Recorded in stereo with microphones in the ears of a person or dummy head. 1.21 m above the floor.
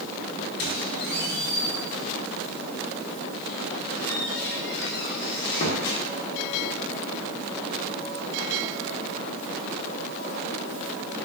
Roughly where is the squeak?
Left.